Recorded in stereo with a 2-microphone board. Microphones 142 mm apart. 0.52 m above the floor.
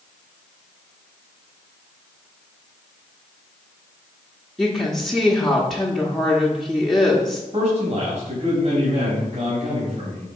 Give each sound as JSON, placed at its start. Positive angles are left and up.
{"t": 4.6, "sound": "a woman speaking", "side_deg": 0, "distance_m": 1.2}
{"t": 7.5, "sound": "a man speaking", "side_deg": -50, "distance_m": 3.5}